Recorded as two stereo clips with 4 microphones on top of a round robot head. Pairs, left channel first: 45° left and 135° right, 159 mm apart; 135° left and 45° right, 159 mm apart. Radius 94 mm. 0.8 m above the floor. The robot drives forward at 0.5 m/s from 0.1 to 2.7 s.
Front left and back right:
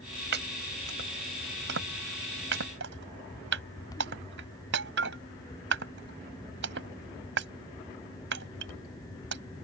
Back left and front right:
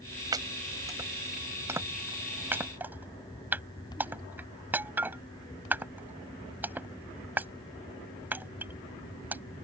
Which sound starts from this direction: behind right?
Chopping, at 0.3 s.